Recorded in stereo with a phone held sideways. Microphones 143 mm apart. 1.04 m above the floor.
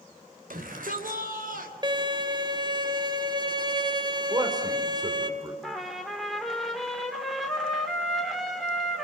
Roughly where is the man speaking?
Right.